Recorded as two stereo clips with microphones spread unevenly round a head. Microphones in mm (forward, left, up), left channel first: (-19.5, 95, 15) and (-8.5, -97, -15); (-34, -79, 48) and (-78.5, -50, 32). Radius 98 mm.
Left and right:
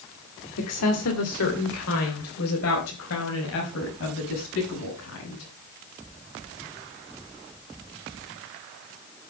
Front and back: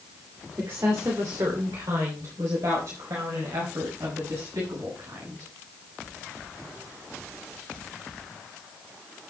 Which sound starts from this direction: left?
A woman speaking, at 0.6 s.